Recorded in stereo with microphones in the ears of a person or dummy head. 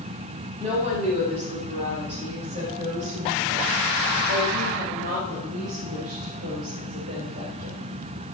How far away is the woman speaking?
About 7 m.